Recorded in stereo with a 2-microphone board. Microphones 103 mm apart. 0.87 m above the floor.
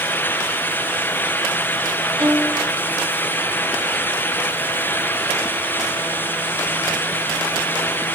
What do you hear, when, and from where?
2.2 s a violin: centre (ahead or behind), 4 m